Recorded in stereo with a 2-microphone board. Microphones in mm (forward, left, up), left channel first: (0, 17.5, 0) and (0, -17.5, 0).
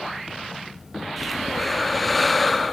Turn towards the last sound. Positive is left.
turn(degrees=5)  # may be behind; listen again after turning